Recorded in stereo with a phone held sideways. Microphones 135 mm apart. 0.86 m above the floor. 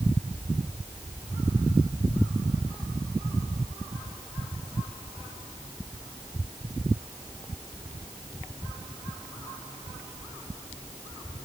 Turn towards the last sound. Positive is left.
No sound to turn to.